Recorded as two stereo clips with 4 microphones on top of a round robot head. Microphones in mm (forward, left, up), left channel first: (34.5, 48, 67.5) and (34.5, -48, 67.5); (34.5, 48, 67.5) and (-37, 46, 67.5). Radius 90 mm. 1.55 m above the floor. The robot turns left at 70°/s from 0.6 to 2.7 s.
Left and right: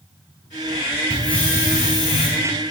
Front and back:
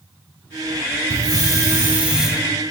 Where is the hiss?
Straight behind, 2.5 m; by 2.3 s 95° left, 2.5 m.